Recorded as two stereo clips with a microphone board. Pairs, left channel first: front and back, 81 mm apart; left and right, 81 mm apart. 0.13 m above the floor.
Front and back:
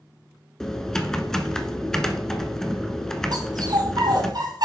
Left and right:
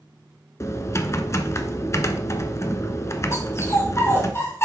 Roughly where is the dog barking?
Behind left.